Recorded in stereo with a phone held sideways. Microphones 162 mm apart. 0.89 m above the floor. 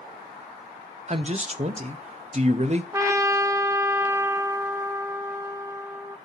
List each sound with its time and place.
1.1 s a man speaking: 40° right (ahead or behind), 0.8 m
2.9 s a trumpet: 15° right (ahead or behind), 0.6 m